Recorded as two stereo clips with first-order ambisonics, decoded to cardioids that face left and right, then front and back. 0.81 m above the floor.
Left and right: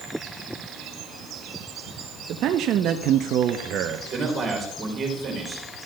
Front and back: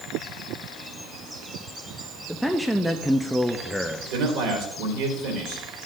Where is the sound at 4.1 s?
160° right, 3 m.